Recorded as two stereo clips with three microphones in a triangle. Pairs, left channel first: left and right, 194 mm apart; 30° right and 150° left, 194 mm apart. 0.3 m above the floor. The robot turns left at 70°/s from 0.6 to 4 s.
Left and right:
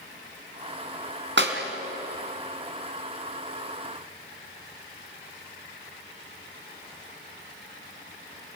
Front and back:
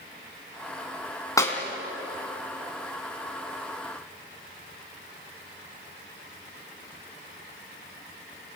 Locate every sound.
1.4 s a clap: 105° right, 3 m; by 1.6 s 120° right, 3 m